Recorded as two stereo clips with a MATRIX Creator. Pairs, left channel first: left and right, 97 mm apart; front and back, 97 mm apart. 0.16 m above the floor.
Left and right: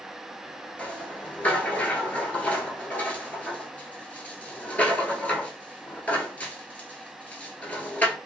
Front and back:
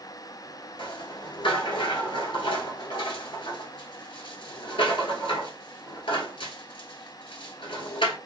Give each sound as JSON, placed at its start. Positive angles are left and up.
{"t": 0.8, "sound": "a rattle", "azimuth_deg": 15, "distance_m": 1.0}